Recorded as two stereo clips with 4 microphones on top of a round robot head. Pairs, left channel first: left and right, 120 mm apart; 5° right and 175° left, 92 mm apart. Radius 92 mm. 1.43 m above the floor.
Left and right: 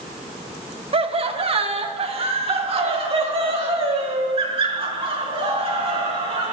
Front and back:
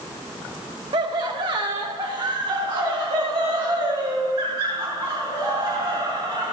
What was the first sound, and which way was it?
Laughter, 130° right.